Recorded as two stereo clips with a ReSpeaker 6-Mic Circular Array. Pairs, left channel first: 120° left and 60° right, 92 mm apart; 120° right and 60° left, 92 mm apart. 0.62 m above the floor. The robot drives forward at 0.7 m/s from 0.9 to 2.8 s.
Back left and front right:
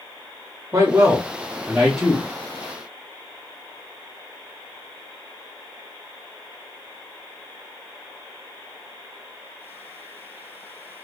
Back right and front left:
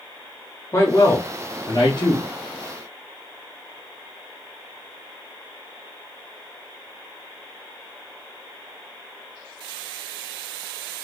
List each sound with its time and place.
0.7 s a man speaking: 85° right, 1.0 m; by 2.3 s 145° right, 1.4 m